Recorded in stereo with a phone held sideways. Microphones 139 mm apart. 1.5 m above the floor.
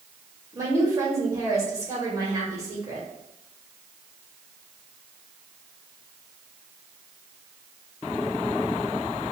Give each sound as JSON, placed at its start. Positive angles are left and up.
{"t": 0.5, "sound": "a woman speaking", "side_deg": -25, "distance_m": 2.0}